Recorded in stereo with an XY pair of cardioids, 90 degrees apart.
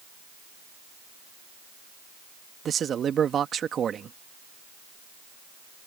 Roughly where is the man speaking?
Ahead right.